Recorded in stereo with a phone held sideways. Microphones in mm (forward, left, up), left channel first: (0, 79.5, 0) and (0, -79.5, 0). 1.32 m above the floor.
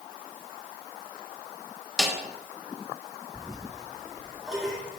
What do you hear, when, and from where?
2.0 s a snare drum: centre (ahead or behind), 0.9 m
3.3 s a toilet flushing: 5° right (ahead or behind), 1.6 m